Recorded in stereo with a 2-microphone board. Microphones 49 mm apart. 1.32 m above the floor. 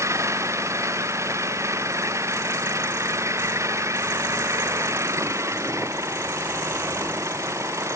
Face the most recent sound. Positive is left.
turn(degrees=-80)